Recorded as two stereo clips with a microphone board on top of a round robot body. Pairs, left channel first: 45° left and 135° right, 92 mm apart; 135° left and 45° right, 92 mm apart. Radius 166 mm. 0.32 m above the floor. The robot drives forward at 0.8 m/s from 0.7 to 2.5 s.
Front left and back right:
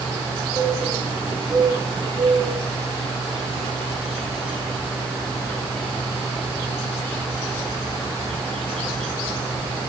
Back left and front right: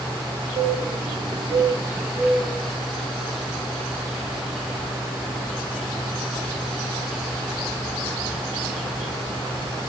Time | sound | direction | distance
0.6 | a bird | 40° right | 1.1 m